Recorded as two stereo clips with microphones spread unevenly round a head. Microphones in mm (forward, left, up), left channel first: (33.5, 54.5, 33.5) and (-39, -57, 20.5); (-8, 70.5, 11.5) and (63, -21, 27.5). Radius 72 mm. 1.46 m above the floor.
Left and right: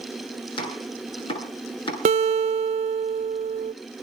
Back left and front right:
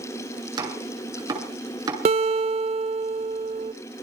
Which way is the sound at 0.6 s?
5° left.